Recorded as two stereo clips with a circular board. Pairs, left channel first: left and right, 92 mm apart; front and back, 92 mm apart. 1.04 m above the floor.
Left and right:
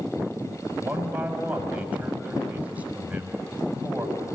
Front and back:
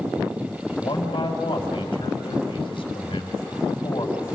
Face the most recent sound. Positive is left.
turn(degrees=-15)